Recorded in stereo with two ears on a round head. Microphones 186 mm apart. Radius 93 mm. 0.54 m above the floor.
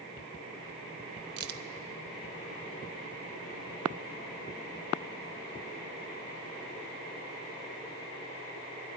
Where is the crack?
50° right (ahead or behind), 0.8 m.